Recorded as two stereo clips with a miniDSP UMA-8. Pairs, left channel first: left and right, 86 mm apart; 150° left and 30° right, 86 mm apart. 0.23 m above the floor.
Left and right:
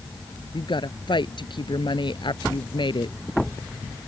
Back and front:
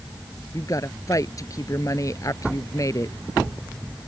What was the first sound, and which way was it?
A woman speaking, 105° left.